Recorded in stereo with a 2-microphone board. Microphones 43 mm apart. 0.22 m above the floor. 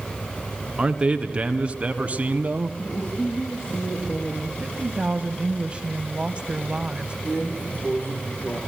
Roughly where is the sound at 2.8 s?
Left.